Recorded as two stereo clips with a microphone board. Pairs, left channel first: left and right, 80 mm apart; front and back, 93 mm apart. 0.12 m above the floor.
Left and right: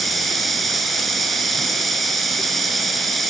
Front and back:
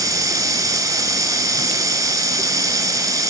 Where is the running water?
Straight behind, 0.9 m.